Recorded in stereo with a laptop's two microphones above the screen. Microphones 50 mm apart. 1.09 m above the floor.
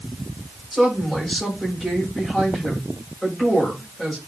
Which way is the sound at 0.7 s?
Centre (ahead or behind).